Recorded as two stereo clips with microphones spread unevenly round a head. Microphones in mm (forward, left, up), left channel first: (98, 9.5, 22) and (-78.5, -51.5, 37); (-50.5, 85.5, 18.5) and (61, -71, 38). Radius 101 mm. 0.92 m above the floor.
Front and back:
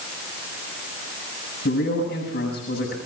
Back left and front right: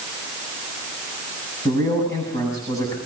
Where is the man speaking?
55° left, 7.5 m.